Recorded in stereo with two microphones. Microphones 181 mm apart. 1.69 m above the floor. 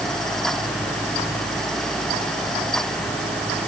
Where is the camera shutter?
I don't hear a camera shutter.